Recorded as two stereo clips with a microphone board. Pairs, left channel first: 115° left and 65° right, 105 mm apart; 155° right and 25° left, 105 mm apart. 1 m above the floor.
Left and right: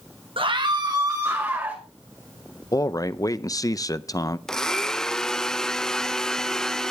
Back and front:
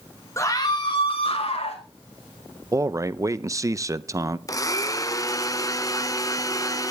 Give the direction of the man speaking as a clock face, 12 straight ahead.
10 o'clock.